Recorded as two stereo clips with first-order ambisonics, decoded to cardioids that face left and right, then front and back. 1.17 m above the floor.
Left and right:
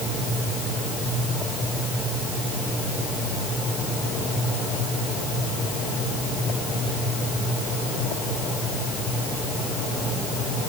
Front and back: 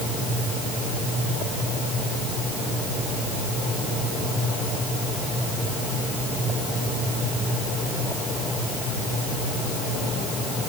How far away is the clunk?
I don't hear a clunk.